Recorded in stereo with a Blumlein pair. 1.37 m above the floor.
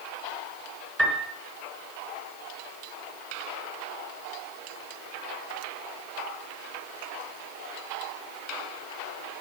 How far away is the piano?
About 4 m.